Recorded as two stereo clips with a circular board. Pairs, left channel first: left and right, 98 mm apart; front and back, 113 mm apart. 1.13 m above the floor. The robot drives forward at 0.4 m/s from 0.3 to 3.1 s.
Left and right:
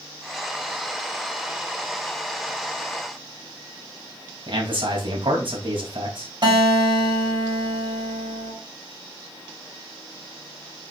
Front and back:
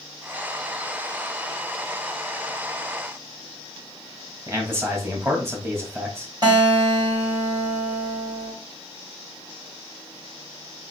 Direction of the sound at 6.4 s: 130° right.